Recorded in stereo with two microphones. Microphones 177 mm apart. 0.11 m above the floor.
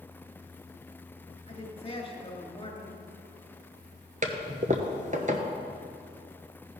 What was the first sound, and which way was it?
A woman speaking, 30° left (ahead or behind).